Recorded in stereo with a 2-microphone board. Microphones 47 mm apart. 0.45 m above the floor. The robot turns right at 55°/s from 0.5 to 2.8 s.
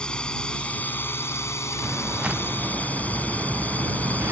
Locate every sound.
0.0 s a drone: 20° left; by 4.3 s 150° left
1.8 s footsteps: 5° right (ahead or behind); by 4.3 s 55° right (ahead or behind)